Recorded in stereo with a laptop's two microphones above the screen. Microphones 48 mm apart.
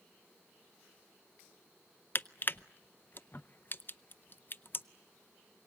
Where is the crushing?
40° left (ahead or behind), 0.5 m.